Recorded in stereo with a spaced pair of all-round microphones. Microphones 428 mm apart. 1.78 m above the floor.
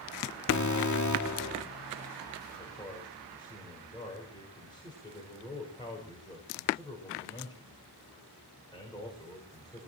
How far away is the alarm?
About 1.3 m.